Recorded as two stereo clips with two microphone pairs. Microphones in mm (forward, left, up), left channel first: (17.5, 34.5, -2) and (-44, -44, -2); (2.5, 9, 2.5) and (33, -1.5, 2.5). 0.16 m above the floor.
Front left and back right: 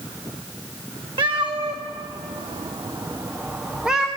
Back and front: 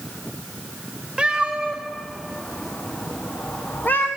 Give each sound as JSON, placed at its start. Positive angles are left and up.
{"t": 1.2, "sound": "a cat meowing", "azimuth_deg": -95, "distance_m": 1.9}